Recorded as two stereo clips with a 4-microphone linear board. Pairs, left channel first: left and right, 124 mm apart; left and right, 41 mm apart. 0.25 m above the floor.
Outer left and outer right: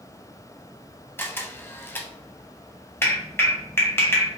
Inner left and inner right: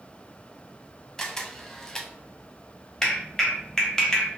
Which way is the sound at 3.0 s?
20° left (ahead or behind).